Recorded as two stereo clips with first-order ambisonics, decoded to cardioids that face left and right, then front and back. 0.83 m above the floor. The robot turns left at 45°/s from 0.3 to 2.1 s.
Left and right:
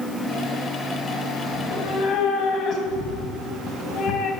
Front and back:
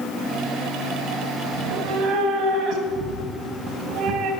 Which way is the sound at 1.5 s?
165° left.